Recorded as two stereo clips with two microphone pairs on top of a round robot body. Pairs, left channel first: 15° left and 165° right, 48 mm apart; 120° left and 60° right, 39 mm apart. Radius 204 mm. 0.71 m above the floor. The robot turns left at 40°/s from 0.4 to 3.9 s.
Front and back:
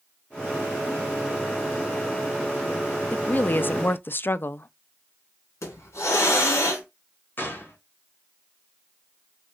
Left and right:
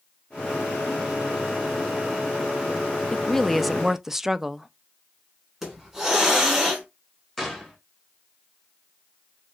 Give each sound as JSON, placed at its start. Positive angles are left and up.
{"t": 3.1, "sound": "a woman speaking", "azimuth_deg": 50, "distance_m": 0.5}
{"t": 5.6, "sound": "a hiss", "azimuth_deg": 20, "distance_m": 1.4}
{"t": 7.4, "sound": "a gunshot", "azimuth_deg": 35, "distance_m": 1.6}